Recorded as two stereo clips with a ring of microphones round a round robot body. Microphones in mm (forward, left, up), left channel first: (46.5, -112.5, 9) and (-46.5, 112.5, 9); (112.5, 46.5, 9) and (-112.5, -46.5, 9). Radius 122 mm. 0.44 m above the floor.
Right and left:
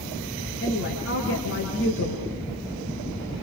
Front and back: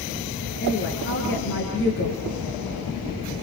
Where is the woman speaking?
25° right, 6 m.